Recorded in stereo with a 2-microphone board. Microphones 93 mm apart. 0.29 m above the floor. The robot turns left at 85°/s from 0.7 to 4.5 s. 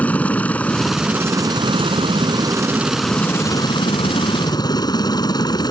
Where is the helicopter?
15° left; by 5.7 s 55° left.